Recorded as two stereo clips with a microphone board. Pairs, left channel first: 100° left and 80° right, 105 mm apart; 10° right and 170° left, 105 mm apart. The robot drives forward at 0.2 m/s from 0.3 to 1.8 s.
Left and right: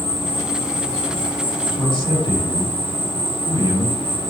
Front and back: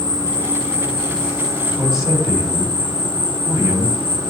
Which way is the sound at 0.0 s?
125° left.